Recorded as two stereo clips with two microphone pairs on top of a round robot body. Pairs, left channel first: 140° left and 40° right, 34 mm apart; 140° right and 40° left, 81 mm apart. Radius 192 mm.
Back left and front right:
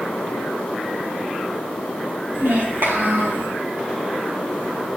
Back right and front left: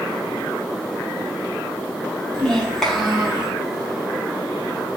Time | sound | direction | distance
2.3 | a child speaking | 60° right | 1.8 m